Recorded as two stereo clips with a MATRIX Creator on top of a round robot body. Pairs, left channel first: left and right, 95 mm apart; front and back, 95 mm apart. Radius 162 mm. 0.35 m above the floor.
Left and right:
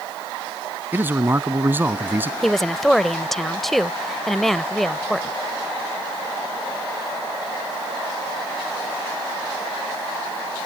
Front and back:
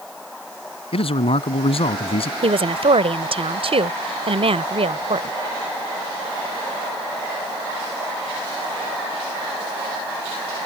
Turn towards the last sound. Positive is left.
turn(degrees=180)